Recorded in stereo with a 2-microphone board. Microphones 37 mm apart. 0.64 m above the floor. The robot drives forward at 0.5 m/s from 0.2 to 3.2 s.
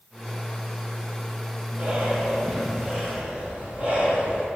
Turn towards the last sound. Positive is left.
turn(degrees=-25)  # may be behind; listen again after turning